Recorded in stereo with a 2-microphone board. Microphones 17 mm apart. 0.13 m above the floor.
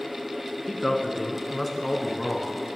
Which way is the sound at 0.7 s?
5° left (ahead or behind).